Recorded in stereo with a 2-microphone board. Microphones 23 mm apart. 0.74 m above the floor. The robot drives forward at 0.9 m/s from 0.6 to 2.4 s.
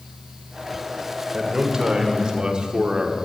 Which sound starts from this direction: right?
A man speaking, at 1.3 s.